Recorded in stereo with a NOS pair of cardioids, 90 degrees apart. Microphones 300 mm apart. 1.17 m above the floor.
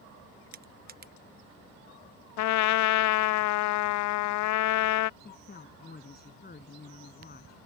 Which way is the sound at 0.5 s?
30° right.